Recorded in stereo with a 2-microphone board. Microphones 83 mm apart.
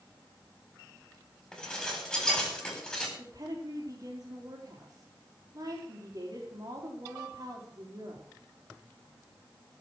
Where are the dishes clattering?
5° left (ahead or behind), 4.5 m.